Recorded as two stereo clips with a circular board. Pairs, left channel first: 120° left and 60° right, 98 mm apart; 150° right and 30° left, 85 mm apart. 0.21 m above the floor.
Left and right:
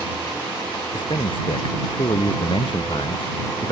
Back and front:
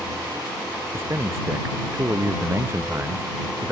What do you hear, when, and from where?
0.9 s a man speaking: 85° left; by 3.7 s 90° left